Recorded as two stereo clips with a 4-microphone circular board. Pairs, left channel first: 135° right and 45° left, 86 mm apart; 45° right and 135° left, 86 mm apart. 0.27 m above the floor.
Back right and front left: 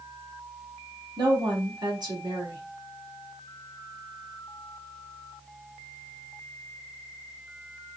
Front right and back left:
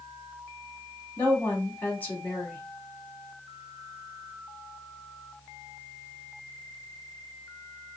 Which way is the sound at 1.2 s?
20° left.